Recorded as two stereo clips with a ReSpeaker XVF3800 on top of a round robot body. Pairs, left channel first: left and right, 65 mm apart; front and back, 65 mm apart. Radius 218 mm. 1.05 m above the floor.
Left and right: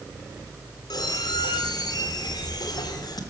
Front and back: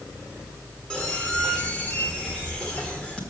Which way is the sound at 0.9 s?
75° left.